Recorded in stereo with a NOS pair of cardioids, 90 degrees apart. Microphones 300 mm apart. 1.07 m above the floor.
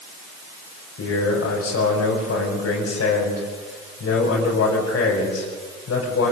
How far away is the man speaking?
About 5.5 m.